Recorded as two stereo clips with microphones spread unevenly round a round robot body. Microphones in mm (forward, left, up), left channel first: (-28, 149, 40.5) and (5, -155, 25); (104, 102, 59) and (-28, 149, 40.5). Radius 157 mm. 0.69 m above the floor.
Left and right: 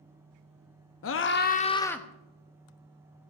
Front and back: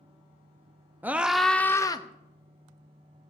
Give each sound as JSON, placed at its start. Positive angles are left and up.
{"t": 1.0, "sound": "a scream", "azimuth_deg": 100, "distance_m": 1.2}